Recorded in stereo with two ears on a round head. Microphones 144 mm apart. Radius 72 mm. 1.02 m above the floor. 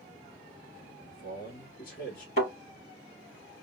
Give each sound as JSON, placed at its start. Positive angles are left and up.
{"t": 1.0, "sound": "a man speaking", "side_deg": 55, "distance_m": 1.9}
{"t": 2.4, "sound": "a thud", "side_deg": 50, "distance_m": 3.5}